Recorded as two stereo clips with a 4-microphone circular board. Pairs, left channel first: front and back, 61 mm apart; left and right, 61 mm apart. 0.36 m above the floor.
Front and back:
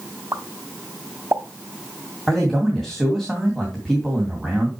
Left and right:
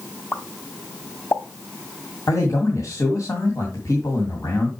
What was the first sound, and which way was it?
A pop, 140° left.